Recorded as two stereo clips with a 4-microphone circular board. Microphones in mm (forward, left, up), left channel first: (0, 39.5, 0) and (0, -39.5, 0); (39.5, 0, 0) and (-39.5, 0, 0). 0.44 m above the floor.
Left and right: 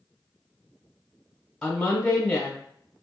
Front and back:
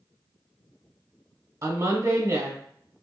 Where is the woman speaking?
165° left, 1.0 m.